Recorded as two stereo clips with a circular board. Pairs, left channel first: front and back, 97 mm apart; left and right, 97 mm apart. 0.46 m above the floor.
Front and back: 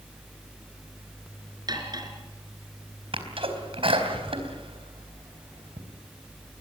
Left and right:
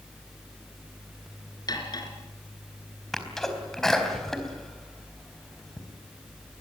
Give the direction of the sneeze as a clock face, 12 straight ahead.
6 o'clock.